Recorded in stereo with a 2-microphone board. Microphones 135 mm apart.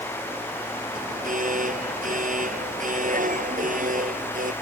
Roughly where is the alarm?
Right.